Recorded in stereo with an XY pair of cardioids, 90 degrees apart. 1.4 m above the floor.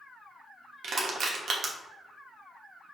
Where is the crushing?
60° right, 1.0 m.